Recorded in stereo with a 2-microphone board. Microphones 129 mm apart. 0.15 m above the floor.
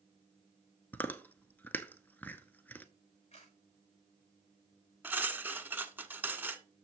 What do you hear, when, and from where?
0.9 s chewing: 15° left (ahead or behind), 0.7 m
3.3 s a camera shutter: 55° left (ahead or behind), 5.5 m
5.0 s cutlery clinking: 15° right (ahead or behind), 0.8 m